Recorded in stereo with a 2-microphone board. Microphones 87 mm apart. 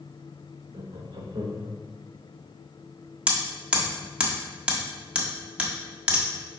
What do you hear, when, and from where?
0.7 s laughter: 55° right (ahead or behind), 1.3 m
3.3 s hammering: 15° right (ahead or behind), 1.1 m